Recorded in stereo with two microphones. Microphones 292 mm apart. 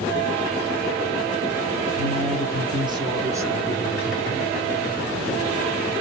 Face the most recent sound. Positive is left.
turn(degrees=0)  # may be behind; listen again after turning